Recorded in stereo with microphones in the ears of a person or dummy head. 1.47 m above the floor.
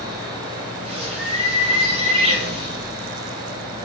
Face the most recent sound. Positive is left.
turn(degrees=-35)  # may be behind; listen again after turning